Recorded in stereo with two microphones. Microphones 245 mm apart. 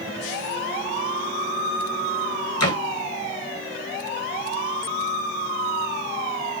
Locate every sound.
2.6 s a door slam: 75° left (ahead or behind), 2 m